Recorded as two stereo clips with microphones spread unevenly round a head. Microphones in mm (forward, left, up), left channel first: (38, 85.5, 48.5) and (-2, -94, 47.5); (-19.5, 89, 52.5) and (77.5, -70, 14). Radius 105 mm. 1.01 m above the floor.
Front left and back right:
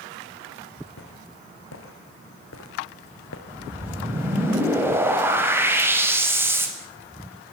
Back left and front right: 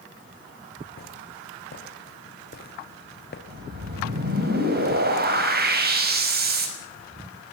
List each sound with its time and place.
1.0 s footsteps: 90° left, 5.5 m
3.5 s a whoosh: 25° right, 5.5 m